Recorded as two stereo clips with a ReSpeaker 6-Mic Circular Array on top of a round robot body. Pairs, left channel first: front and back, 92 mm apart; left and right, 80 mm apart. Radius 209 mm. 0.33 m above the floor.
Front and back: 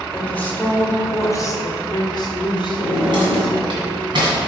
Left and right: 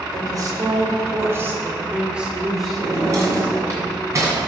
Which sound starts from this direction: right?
A woman speaking, at 0.1 s.